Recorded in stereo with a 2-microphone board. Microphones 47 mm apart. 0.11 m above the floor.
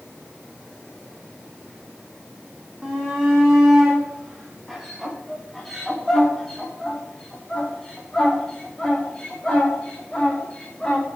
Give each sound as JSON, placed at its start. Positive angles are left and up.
{"t": 2.8, "sound": "a shout", "side_deg": -15, "distance_m": 5.5}